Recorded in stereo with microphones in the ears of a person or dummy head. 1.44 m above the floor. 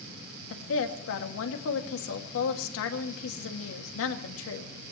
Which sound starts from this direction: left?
A woman speaking, at 0.5 s.